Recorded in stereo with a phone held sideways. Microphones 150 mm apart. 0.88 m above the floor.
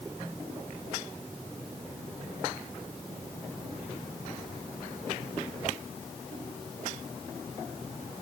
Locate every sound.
Only background noise.